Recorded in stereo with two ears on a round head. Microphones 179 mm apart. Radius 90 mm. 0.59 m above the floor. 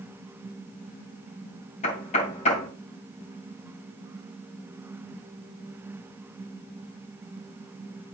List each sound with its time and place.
1.8 s knocking: 35° left (ahead or behind), 2 m